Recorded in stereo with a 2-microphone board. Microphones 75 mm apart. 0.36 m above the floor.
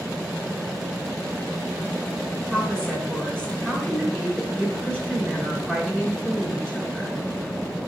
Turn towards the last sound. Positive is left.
turn(degrees=5)  # may be behind; listen again after turning